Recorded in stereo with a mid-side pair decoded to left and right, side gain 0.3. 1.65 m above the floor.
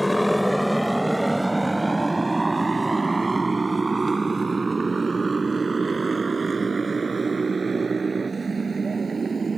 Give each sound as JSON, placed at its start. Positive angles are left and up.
{"t": 0.0, "sound": "a motorcycle", "azimuth_deg": 10}